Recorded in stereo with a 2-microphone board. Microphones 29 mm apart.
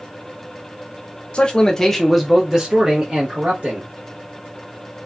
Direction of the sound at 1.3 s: 40° left (ahead or behind).